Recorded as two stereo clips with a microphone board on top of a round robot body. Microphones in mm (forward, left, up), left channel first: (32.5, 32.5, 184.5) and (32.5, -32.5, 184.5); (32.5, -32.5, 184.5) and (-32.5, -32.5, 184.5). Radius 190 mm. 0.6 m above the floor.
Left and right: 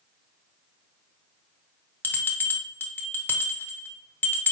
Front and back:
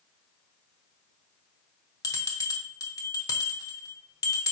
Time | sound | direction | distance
2.0 | a bell | 30° left | 0.8 m